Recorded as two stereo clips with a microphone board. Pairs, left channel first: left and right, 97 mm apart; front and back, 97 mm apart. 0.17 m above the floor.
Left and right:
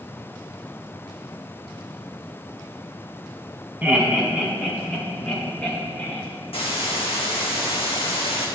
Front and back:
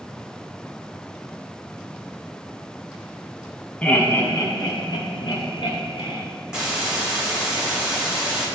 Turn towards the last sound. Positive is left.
turn(degrees=100)